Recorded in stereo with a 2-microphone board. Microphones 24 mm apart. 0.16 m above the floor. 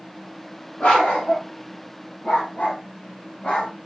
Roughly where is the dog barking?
Left.